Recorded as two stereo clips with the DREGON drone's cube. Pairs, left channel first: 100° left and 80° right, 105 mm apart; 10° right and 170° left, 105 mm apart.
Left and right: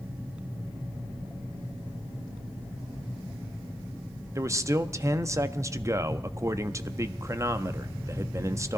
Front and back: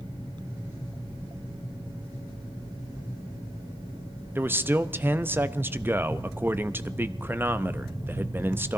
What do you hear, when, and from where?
4.3 s a man speaking: 125° right, 0.6 m